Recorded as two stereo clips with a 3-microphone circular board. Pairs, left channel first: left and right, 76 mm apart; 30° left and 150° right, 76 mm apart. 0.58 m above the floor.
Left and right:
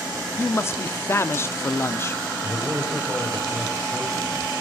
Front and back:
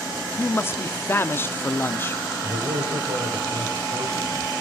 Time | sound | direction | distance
0.4 | a man speaking | 65° left | 0.7 m
2.4 | a man speaking | 170° right | 4.5 m